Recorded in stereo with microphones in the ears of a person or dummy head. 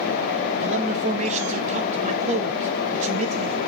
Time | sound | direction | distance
0.6 | a man speaking | 45° right (ahead or behind) | 1.3 m